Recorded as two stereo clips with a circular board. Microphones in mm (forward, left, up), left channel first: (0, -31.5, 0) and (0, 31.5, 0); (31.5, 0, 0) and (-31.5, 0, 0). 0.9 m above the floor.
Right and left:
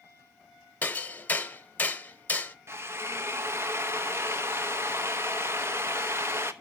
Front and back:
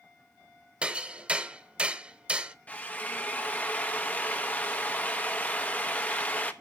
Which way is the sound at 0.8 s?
125° right.